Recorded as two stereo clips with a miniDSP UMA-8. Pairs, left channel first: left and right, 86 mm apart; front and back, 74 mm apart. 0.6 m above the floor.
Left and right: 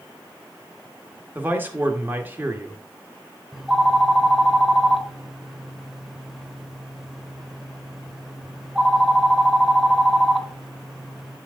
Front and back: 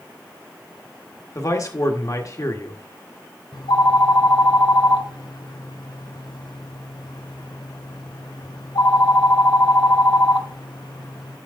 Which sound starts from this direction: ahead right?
A man speaking, at 1.4 s.